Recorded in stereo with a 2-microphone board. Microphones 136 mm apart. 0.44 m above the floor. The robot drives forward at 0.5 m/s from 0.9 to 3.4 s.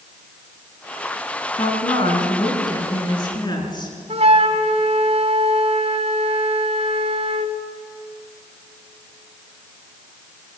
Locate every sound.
1.6 s a woman speaking: 40° left (ahead or behind), 5.5 m; by 4.0 s 35° left (ahead or behind), 6.5 m
4.1 s a flute: 50° right (ahead or behind), 1.5 m